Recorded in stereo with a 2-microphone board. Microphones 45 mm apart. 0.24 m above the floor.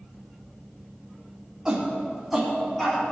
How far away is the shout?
About 1.6 m.